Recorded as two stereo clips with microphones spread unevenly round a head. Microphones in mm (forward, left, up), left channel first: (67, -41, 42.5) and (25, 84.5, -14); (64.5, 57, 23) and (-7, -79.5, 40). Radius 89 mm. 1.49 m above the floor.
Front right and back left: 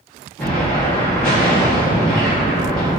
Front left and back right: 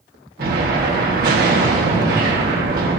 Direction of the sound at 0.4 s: 155° right.